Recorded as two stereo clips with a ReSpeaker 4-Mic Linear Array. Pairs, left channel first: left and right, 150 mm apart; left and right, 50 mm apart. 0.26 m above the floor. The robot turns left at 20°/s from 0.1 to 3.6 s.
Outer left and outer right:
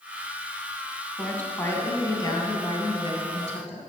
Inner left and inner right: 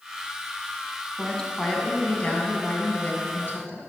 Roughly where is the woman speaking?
Behind.